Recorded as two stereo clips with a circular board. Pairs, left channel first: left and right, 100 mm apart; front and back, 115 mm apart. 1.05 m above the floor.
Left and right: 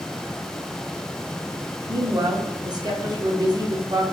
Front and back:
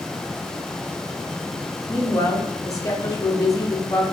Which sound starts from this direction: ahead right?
A woman speaking, at 1.9 s.